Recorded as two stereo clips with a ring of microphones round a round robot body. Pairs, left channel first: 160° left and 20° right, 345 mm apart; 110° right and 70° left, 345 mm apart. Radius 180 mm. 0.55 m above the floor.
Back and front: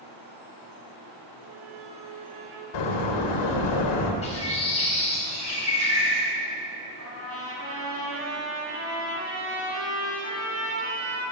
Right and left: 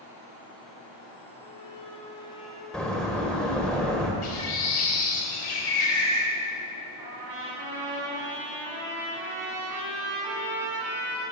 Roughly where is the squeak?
Ahead right.